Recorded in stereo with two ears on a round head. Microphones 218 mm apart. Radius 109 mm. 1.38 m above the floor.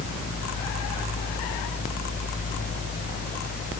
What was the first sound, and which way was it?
Only background noise.